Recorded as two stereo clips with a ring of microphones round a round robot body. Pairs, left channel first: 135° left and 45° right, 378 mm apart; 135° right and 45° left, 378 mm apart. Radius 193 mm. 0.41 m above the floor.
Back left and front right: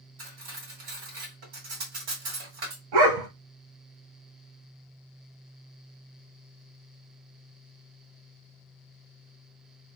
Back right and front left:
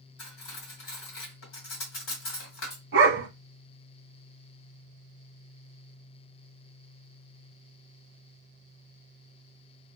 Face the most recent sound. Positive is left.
turn(degrees=-15)